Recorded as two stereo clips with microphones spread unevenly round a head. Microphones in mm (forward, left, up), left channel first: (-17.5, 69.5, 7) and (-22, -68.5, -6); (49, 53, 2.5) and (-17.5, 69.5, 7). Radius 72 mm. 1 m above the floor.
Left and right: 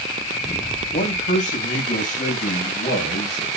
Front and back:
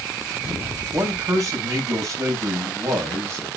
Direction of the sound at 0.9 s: 125° left.